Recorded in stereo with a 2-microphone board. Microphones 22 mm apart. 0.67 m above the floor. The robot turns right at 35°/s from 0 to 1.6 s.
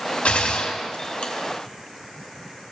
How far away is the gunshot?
About 1.0 m.